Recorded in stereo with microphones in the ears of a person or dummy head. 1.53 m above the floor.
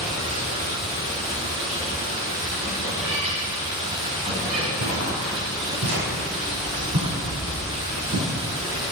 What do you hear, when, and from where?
0.0 s running water: 30° right (ahead or behind), 2.5 m
2.9 s a cat meowing: 35° right (ahead or behind), 1.9 m
4.8 s footsteps: 45° right (ahead or behind), 3 m; by 8.3 s 75° right (ahead or behind), 6.5 m